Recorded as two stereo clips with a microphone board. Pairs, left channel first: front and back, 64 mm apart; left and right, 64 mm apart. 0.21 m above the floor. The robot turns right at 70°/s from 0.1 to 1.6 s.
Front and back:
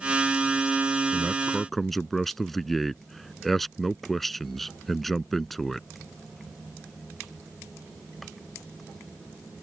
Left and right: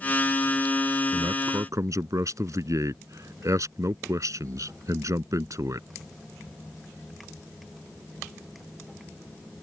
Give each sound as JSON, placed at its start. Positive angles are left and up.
{"t": 1.1, "sound": "a man speaking", "azimuth_deg": -120}